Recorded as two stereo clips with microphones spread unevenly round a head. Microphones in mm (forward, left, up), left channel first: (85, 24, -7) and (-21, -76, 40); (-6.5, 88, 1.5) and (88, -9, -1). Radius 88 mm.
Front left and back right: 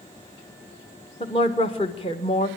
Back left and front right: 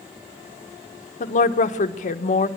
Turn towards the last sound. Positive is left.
turn(degrees=110)